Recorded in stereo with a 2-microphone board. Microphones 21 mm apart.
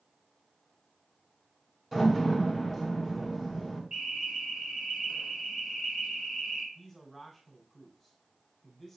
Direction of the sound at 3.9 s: 40° right (ahead or behind).